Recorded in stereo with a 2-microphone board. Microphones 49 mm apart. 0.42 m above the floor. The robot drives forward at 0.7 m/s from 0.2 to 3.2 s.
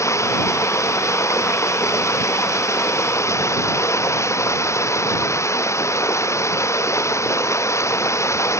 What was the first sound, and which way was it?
Running water, 85° left.